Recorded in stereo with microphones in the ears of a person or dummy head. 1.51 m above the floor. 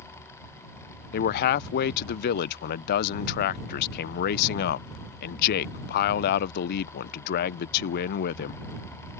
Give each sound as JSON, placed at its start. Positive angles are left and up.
{"t": 1.1, "sound": "a man speaking", "side_deg": 60}